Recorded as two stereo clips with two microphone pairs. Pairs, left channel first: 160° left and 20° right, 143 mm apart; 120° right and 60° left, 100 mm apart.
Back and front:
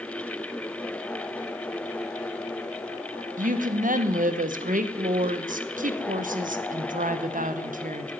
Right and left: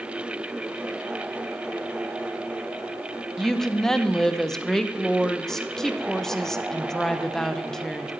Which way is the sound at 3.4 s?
35° right.